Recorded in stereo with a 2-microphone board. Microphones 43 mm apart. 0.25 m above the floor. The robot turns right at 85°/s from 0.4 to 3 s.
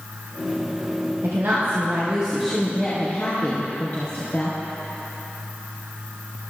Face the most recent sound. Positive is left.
turn(degrees=45)